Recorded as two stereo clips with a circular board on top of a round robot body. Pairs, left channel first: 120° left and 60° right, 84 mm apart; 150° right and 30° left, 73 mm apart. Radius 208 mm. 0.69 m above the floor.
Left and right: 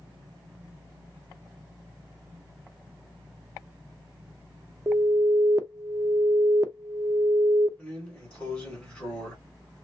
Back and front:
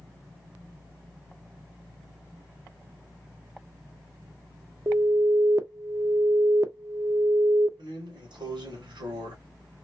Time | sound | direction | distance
4.9 | an alarm | 10° right | 0.7 m
7.8 | a drawer | 40° left | 1.7 m